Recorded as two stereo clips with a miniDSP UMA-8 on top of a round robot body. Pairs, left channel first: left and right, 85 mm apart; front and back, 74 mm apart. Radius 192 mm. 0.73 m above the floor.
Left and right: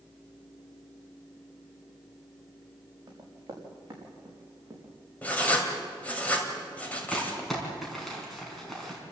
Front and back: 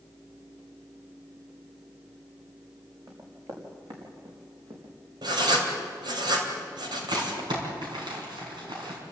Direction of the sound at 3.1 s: 140° right.